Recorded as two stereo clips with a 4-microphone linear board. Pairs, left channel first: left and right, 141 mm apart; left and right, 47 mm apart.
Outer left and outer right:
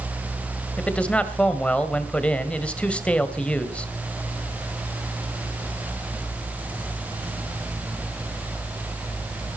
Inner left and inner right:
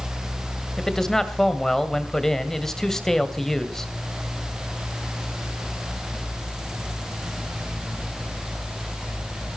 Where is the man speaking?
5° left (ahead or behind), 1.8 m.